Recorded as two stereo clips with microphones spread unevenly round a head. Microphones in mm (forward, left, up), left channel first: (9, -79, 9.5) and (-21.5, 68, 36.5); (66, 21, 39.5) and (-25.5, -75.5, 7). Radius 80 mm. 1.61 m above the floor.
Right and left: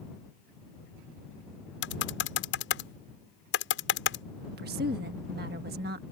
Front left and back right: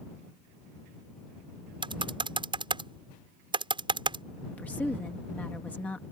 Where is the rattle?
I don't hear a rattle.